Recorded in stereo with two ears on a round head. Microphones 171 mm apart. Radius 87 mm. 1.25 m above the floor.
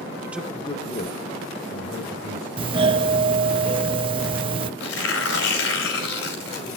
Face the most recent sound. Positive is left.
turn(degrees=85)